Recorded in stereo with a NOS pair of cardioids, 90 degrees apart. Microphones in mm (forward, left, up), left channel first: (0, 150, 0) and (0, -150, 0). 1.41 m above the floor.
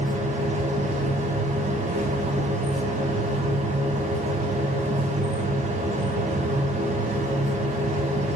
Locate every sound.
0.0 s a machine running: 25° right, 1.8 m